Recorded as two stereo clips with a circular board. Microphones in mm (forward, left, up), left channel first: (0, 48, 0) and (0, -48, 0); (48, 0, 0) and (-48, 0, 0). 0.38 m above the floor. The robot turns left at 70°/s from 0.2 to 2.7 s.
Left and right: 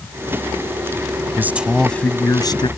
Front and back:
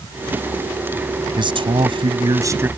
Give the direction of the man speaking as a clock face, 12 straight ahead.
5 o'clock.